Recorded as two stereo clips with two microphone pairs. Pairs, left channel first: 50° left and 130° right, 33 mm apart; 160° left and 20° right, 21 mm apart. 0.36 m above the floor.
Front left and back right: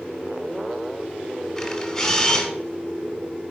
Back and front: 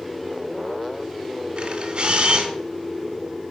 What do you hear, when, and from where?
1.6 s a camera shutter: 25° right, 1.5 m